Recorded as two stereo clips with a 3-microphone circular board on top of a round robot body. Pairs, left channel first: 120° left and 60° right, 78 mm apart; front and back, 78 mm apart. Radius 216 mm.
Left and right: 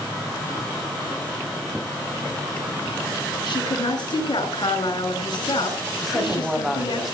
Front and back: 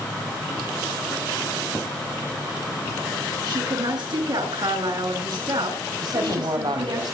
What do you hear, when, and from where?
3.5 s a woman speaking: 150° left, 7.5 m
6.0 s a man speaking: 145° right, 5 m